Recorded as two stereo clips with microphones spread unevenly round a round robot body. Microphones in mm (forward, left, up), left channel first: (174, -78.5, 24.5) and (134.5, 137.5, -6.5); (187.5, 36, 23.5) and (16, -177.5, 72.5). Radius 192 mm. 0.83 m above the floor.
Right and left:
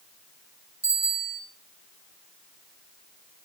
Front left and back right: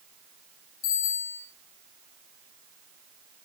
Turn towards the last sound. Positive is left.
turn(degrees=65)